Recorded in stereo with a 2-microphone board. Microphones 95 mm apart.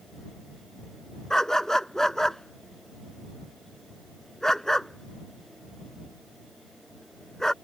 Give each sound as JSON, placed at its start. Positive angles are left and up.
{"t": 1.3, "sound": "a dog barking", "side_deg": 5}